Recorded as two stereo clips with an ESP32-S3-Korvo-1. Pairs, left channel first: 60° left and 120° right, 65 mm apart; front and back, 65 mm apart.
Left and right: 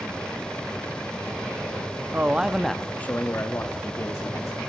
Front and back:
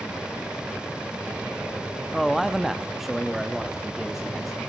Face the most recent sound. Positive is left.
turn(degrees=90)